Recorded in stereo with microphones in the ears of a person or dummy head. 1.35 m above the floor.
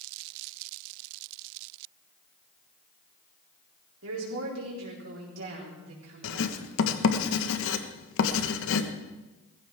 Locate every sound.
4.0 s a woman speaking: 80° right, 4 m
6.2 s writing: 75° left (ahead or behind), 1.4 m